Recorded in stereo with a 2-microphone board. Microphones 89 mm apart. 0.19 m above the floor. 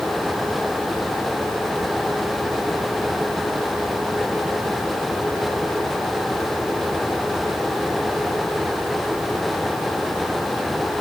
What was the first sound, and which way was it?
Only background noise.